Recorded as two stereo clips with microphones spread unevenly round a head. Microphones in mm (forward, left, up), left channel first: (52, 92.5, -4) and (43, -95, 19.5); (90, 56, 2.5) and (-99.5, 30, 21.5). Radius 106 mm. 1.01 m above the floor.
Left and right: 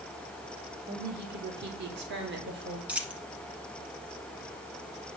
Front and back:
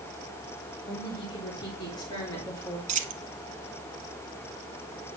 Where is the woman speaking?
60° right, 3.5 m; by 2.8 s 70° right, 2.5 m.